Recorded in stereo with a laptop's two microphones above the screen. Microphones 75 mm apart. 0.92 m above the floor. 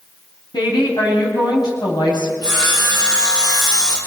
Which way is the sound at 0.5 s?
65° left (ahead or behind).